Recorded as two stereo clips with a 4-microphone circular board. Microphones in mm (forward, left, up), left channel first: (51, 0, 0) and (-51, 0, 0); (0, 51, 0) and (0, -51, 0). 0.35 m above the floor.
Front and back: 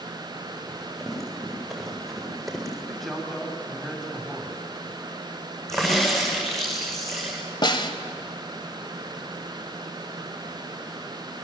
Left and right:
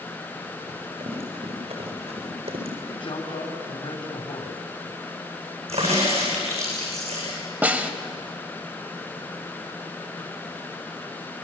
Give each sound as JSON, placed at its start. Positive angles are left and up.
{"t": 0.7, "sound": "running footsteps", "azimuth_deg": -90, "distance_m": 9.5}
{"t": 2.9, "sound": "a man speaking", "azimuth_deg": 85, "distance_m": 3.0}
{"t": 5.7, "sound": "a crack", "azimuth_deg": -90, "distance_m": 9.5}
{"t": 7.6, "sound": "a snare drum", "azimuth_deg": -20, "distance_m": 1.8}